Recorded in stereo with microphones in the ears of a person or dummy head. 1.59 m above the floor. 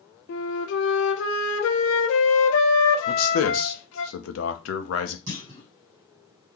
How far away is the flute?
About 0.7 m.